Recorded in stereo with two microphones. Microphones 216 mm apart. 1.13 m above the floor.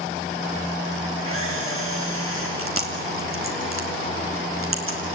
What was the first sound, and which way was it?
A camera shutter, 80° right.